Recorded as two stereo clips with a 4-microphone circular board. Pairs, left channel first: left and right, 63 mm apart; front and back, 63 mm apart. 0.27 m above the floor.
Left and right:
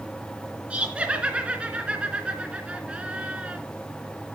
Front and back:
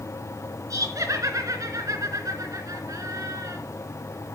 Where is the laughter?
160° right, 3 m.